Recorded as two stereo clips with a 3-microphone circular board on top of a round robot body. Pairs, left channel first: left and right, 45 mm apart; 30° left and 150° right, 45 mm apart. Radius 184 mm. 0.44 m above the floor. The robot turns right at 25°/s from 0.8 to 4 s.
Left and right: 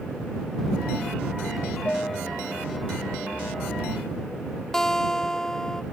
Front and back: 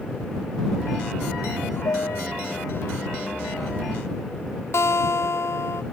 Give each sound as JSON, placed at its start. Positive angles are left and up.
{"t": 1.9, "sound": "a piano", "azimuth_deg": 25}
{"t": 4.7, "sound": "a guitar", "azimuth_deg": 10}